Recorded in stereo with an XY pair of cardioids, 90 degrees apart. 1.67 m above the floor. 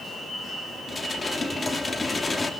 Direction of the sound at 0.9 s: 25° left.